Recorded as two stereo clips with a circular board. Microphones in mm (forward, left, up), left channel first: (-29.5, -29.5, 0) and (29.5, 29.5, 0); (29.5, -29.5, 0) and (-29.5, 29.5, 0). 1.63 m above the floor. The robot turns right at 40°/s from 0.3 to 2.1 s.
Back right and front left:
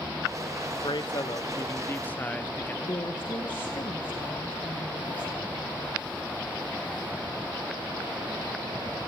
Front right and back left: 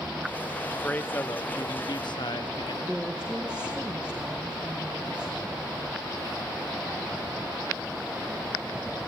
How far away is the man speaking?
About 1.1 m.